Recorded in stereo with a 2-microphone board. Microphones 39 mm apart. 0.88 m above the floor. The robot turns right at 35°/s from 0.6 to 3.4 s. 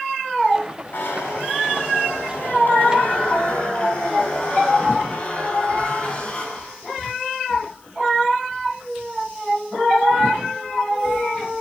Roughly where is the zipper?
Ahead left.